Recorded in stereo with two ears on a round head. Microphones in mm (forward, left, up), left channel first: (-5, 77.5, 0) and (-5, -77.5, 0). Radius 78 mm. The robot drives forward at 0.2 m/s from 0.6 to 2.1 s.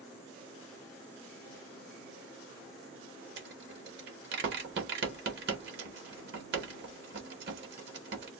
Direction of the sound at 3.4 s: 60° right (ahead or behind).